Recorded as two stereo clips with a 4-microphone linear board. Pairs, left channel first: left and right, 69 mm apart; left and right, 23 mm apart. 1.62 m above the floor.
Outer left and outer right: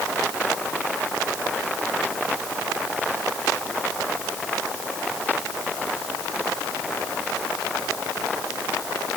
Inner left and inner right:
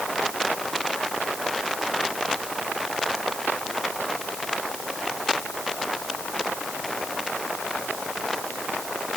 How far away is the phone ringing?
I don't hear a phone ringing.